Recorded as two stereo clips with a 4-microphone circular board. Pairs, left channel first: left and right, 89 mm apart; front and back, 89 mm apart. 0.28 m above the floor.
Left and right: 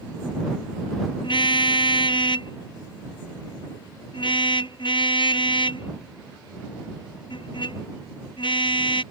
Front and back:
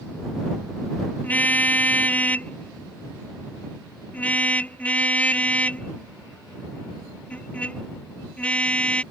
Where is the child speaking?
No child speaking in this recording.